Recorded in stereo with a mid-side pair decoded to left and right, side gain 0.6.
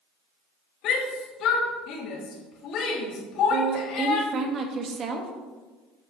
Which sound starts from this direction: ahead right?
A woman speaking, at 3.5 s.